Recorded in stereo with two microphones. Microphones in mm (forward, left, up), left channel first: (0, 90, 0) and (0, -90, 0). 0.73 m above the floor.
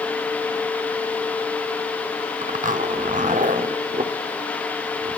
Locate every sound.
2.4 s a zipper: 45° right (ahead or behind), 0.6 m